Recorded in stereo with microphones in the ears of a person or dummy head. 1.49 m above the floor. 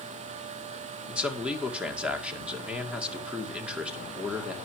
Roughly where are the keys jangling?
I don't hear keys jangling.